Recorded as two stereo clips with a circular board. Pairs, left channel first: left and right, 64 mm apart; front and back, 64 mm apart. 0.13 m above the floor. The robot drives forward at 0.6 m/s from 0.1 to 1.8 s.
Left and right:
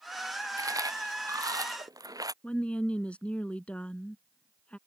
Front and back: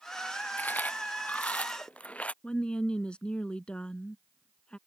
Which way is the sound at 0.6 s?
65° right.